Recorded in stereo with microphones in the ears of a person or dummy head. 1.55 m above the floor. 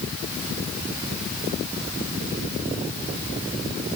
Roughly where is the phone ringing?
I don't hear a phone ringing.